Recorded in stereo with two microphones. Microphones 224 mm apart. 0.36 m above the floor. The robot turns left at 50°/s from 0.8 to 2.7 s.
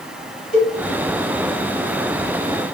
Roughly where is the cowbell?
Left.